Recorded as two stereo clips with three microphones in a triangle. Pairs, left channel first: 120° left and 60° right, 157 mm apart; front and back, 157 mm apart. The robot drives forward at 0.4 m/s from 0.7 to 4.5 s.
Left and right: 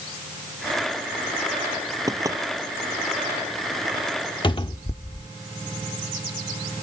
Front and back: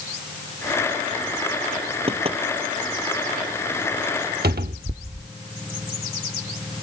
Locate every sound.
2.1 s knocking: 130° right
4.4 s a cupboard door: straight behind